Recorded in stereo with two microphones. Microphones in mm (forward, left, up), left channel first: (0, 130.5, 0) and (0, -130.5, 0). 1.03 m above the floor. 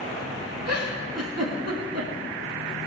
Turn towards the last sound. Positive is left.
turn(degrees=-70)  # may be behind; listen again after turning